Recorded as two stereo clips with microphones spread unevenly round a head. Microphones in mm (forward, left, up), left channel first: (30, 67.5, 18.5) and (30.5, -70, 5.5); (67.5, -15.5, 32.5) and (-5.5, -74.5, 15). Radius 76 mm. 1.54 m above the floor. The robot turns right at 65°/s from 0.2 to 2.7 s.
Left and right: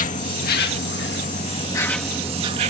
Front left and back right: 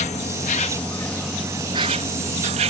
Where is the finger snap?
No finger snap in this recording.